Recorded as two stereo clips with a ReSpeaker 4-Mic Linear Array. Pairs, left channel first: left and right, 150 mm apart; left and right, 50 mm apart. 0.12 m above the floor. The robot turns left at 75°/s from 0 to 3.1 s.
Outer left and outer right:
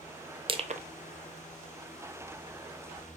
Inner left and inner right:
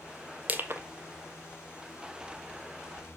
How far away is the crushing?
About 0.6 m.